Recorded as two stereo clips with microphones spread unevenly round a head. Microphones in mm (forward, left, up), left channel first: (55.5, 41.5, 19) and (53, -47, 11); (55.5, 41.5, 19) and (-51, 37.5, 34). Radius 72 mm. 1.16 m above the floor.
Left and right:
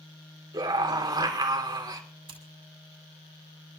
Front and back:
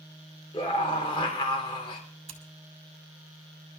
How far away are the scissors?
About 2 m.